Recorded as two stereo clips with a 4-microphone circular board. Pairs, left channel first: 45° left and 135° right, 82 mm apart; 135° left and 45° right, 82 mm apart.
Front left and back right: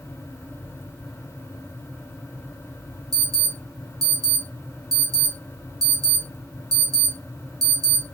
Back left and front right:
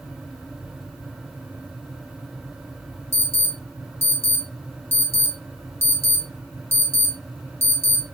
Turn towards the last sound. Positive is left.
turn(degrees=-100)